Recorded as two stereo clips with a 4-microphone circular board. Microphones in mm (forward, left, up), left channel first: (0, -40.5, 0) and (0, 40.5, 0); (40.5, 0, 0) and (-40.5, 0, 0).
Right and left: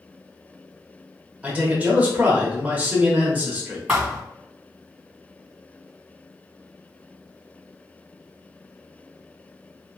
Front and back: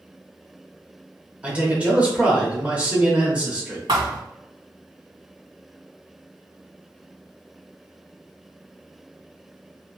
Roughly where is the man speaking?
Behind left.